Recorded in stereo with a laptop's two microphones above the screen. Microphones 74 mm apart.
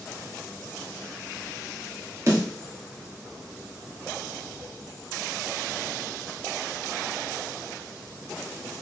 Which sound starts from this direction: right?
A snare drum, at 2.3 s.